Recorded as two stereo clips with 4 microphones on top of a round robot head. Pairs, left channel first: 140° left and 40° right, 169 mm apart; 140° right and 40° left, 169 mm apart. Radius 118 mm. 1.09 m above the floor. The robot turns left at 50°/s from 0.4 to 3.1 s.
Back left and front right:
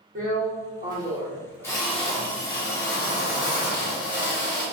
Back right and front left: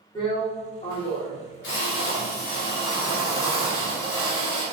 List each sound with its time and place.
0.1 s a drill: 80° right, 1.6 m; by 4.7 s 145° left, 1.6 m